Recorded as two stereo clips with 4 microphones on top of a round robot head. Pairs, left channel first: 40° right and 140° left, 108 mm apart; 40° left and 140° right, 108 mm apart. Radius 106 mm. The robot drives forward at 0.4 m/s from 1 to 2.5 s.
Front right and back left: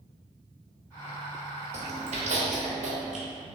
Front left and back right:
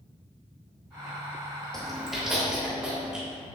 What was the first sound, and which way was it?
Chewing, 125° left.